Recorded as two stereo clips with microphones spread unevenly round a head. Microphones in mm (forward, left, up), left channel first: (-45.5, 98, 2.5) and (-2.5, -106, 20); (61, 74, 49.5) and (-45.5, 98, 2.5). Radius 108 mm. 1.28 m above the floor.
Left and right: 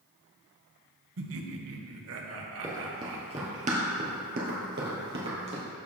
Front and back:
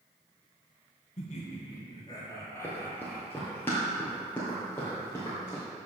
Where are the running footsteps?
15° right, 1.5 m; by 5.6 s 70° right, 2 m.